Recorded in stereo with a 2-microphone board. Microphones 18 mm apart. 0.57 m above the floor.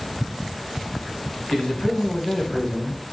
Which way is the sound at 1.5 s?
50° left (ahead or behind).